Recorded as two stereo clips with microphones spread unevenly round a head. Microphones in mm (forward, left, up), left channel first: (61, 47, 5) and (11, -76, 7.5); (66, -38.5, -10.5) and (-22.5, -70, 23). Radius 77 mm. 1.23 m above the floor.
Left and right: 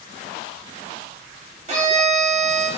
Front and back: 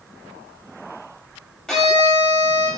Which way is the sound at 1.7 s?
70° right.